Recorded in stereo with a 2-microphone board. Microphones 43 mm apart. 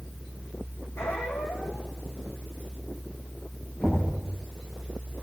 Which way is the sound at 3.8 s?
25° left (ahead or behind).